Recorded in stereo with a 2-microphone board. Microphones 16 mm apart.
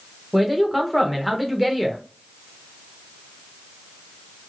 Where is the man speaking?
15° right (ahead or behind), 0.9 m.